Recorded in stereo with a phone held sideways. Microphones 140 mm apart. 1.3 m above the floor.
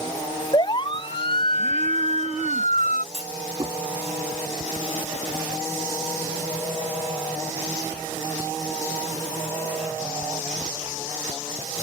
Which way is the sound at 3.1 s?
45° right (ahead or behind).